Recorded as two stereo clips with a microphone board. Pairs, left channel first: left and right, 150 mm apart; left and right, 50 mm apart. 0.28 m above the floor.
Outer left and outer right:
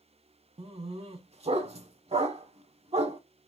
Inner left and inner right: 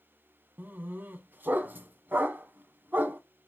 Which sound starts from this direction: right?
A dog barking, at 0.6 s.